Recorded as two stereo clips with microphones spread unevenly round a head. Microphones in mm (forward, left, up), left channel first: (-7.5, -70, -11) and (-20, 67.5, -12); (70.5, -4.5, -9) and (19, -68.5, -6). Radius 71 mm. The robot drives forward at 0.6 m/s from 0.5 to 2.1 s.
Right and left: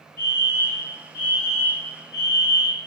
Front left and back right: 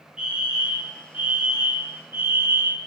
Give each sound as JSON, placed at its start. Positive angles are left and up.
{"t": 0.2, "sound": "a fire alarm", "azimuth_deg": -55, "distance_m": 3.0}